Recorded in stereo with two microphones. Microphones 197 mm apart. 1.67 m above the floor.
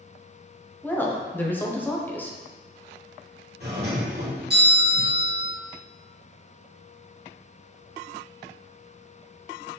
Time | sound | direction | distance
0.8 | a woman speaking | 10° left (ahead or behind) | 0.7 m
3.6 | a doorbell | 55° right (ahead or behind) | 1.6 m